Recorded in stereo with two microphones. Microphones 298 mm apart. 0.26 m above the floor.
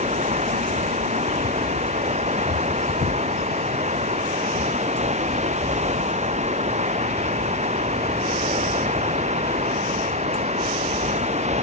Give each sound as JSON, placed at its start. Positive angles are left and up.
{"t": 0.0, "sound": "running water", "side_deg": -20}